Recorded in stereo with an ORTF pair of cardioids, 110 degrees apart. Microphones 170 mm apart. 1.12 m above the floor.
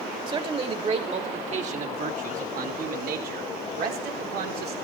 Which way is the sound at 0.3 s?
30° right.